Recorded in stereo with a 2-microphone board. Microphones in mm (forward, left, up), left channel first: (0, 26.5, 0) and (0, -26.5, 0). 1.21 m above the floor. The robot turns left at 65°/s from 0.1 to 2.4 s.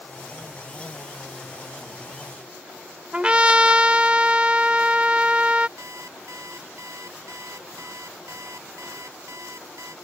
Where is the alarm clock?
75° right (ahead or behind).